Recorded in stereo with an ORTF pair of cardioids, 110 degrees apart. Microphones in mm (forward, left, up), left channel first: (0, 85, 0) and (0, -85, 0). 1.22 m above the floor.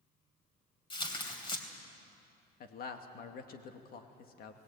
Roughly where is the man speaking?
Ahead left.